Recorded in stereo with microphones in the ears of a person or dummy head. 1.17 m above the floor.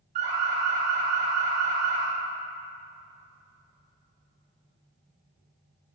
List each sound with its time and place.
0.1 s an alarm: 40° right (ahead or behind), 4 m